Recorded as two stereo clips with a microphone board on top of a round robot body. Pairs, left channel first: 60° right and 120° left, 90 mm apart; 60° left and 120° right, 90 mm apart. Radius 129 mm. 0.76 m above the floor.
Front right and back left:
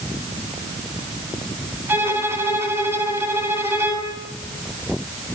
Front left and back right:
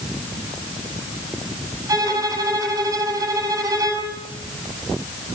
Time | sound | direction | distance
1.9 | a violin | 175° right | 8 m